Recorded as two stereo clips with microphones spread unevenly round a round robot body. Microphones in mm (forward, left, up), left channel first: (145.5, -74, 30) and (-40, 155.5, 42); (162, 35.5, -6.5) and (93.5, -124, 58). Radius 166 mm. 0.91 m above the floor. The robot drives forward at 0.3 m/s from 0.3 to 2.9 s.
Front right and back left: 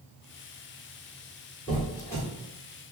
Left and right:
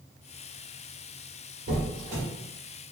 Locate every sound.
1.7 s a squeak: 125° right, 0.8 m; by 2.2 s 135° right, 0.9 m